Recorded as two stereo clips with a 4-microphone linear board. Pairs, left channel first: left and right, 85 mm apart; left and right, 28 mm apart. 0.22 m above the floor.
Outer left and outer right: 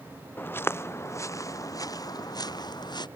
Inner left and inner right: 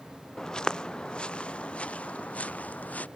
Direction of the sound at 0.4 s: 25° left (ahead or behind).